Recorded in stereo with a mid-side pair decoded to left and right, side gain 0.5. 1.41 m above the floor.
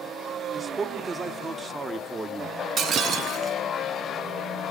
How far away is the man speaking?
About 2.5 m.